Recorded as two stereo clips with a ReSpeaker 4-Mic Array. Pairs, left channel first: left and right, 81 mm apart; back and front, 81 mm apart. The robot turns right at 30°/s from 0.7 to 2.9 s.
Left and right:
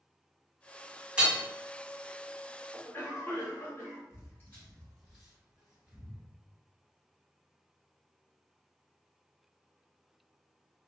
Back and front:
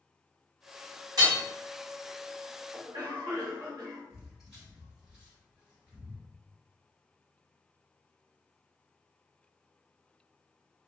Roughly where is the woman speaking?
No woman speaking in this recording.